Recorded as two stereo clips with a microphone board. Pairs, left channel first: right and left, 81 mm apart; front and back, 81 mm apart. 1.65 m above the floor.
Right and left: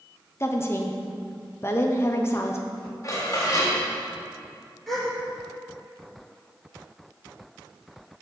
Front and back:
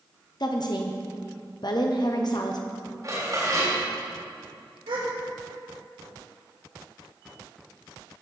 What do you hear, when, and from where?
0.4 s a woman speaking: 30° right, 0.9 m
3.0 s dishes clattering: 140° right, 3.5 m
4.9 s a gasp: straight behind, 3 m